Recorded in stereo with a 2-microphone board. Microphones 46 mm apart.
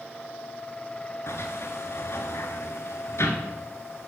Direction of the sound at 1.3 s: 75° left (ahead or behind).